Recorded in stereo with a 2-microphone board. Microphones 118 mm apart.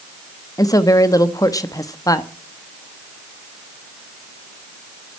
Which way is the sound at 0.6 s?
30° left (ahead or behind).